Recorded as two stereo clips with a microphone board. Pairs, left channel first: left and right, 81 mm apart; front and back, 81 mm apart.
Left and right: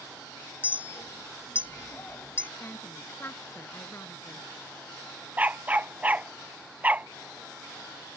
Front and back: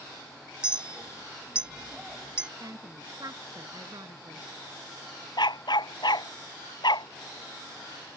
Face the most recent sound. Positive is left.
turn(degrees=-20)